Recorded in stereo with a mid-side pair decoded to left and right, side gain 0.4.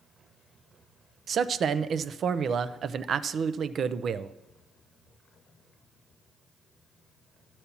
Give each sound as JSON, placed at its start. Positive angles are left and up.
{"t": 1.3, "sound": "a man speaking", "azimuth_deg": -60, "distance_m": 0.5}